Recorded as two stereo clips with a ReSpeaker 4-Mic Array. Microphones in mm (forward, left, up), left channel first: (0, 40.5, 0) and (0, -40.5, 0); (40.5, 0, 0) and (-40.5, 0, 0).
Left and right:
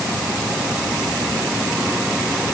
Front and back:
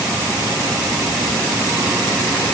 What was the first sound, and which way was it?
Only background noise.